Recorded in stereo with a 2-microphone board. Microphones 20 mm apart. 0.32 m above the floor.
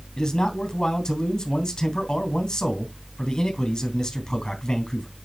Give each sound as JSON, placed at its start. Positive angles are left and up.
{"t": 0.2, "sound": "a man speaking", "side_deg": 45, "distance_m": 2.5}